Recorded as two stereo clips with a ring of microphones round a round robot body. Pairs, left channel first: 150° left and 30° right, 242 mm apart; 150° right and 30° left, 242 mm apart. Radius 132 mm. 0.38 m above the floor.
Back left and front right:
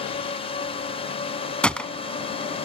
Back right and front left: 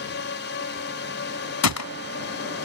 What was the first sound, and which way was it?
A drone, 150° right.